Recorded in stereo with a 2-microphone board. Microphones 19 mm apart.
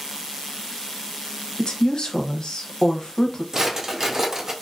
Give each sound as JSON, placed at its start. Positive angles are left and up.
{"t": 1.6, "sound": "a woman speaking", "side_deg": 55, "distance_m": 0.7}
{"t": 3.5, "sound": "a drawer", "side_deg": -35, "distance_m": 0.5}